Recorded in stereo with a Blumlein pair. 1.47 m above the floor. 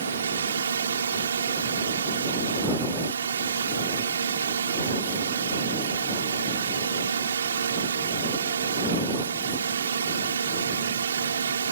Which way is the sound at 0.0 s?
70° right.